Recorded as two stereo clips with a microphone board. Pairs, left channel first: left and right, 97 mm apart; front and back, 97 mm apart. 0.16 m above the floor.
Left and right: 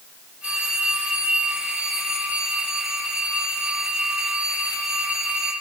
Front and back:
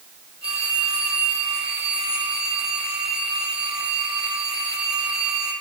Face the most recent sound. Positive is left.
turn(degrees=-165)